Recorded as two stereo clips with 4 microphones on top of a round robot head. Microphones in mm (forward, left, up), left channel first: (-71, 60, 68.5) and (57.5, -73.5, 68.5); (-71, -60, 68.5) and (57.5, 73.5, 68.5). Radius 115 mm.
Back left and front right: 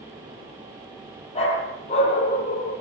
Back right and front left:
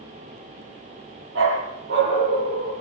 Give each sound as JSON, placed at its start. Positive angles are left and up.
{"t": 1.4, "sound": "a dog barking", "azimuth_deg": 75, "distance_m": 6.5}